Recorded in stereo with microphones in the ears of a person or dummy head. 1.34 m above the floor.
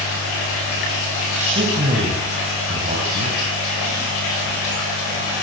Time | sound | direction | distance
1.3 | a man speaking | 40° right (ahead or behind) | 6 m